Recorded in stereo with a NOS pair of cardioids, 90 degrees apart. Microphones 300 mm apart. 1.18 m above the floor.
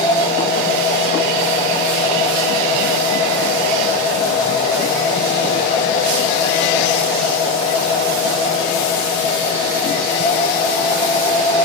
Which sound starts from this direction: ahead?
A machine running, at 0.0 s.